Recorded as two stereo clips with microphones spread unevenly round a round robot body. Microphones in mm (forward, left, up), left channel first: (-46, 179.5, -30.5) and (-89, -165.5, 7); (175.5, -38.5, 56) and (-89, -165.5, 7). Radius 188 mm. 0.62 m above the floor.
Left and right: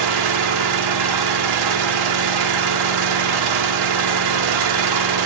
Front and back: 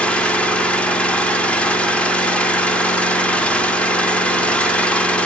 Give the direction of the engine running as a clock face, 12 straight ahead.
2 o'clock.